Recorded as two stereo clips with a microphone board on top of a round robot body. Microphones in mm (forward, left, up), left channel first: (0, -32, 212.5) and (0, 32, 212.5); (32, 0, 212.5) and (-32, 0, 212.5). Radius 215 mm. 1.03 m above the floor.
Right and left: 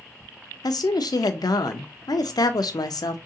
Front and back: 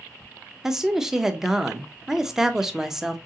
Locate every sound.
0.6 s a woman speaking: 95° right, 0.5 m